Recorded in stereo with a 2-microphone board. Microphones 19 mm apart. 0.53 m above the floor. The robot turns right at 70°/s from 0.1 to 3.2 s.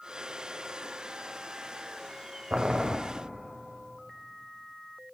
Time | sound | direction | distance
2.5 | boiling | 65° right | 0.7 m